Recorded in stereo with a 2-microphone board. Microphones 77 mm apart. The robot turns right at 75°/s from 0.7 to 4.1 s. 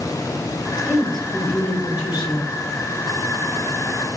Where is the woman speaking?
15° right, 3 m; by 2.5 s 110° left, 3 m.